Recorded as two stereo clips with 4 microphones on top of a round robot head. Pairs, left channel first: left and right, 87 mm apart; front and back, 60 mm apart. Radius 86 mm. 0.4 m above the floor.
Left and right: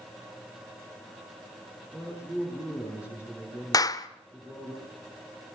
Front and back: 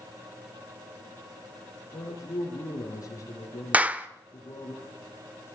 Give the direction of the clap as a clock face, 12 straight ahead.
8 o'clock.